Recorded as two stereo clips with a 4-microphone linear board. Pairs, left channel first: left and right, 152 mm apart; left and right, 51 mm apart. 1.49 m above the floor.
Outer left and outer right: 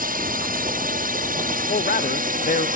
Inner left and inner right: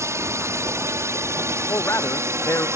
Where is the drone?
70° right (ahead or behind); by 2.8 s 65° right (ahead or behind).